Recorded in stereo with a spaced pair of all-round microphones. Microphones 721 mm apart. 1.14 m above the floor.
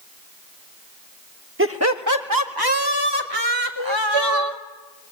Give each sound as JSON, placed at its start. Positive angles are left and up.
{"t": 1.6, "sound": "laughter", "side_deg": -15, "distance_m": 1.5}
{"t": 3.8, "sound": "crying", "side_deg": -30, "distance_m": 0.7}